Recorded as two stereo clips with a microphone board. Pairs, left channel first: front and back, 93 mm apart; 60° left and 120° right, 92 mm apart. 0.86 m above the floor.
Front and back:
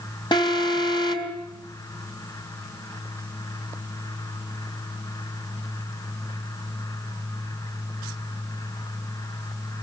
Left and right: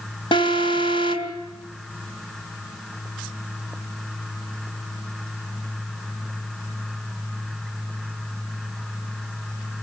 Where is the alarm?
35° left, 3 m.